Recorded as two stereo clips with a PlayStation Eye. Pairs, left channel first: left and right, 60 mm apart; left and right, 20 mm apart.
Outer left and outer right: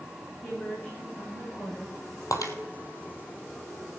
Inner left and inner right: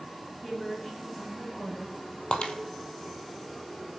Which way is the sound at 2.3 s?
70° left (ahead or behind).